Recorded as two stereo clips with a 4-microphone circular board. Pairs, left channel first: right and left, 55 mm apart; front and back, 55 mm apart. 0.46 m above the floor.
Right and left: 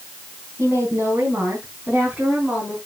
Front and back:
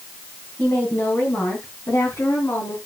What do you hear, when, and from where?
0.6 s a woman speaking: 55° left, 3 m; by 2.8 s 15° left, 4 m